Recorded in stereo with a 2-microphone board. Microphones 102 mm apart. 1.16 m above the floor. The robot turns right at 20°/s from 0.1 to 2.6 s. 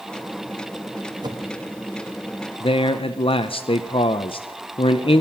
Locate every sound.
1.2 s a whoosh: 45° right (ahead or behind), 1.3 m; by 1.5 s 35° right (ahead or behind), 1.3 m
2.6 s a man speaking: 60° left (ahead or behind), 0.5 m